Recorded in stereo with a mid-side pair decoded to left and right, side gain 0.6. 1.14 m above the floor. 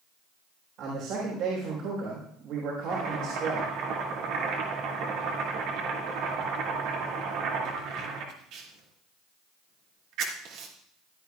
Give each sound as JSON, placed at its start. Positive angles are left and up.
{"t": 0.8, "sound": "a man speaking", "azimuth_deg": -65, "distance_m": 4.0}
{"t": 2.9, "sound": "chopping", "azimuth_deg": -70, "distance_m": 2.5}